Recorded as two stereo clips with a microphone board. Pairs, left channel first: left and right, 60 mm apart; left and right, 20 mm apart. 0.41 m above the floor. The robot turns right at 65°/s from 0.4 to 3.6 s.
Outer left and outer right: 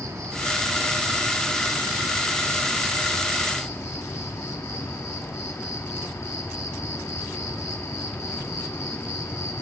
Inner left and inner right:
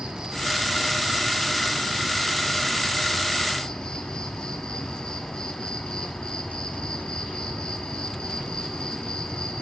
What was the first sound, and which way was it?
An insect, 105° right.